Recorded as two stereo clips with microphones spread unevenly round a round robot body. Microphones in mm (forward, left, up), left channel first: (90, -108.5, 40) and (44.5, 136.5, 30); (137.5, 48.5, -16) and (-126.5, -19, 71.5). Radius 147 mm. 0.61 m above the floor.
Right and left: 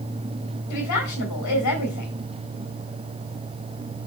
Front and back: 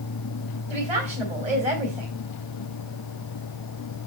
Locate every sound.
0.7 s a woman speaking: 95° right, 4 m